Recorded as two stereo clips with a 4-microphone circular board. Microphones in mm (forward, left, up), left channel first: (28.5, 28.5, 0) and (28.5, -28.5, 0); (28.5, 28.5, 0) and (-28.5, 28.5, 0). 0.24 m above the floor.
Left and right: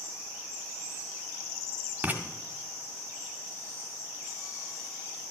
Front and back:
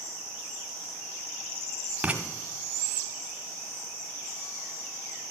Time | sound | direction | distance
2.0 | writing | 125° right | 1.7 m